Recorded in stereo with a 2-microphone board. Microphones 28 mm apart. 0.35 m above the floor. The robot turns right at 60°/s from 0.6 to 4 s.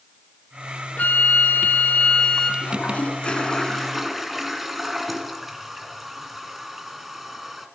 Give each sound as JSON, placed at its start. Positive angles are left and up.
{"t": 1.0, "sound": "a flute", "azimuth_deg": 65, "distance_m": 1.6}
{"t": 2.6, "sound": "a toilet flushing", "azimuth_deg": 100, "distance_m": 2.0}